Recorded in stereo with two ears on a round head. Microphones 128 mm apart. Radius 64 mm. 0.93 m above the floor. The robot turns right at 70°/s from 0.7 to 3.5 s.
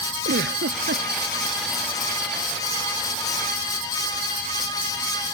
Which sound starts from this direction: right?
A giggle, at 0.2 s.